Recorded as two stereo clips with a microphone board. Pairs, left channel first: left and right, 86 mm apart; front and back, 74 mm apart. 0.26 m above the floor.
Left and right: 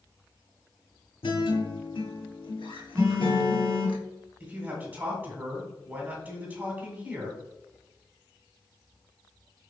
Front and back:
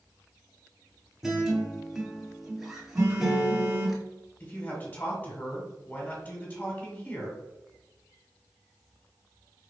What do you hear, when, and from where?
1.2 s a guitar: 95° left, 1.1 m
3.0 s a phone buzzing: 140° right, 1.9 m
4.4 s a man speaking: 45° right, 1.6 m